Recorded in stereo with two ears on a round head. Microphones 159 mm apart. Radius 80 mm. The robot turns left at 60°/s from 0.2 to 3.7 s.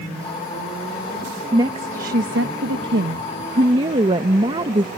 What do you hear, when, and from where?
1.5 s a woman speaking: 20° right; by 4.9 s 150° right